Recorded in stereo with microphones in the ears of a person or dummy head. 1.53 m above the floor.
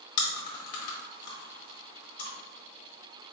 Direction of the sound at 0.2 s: 65° left (ahead or behind).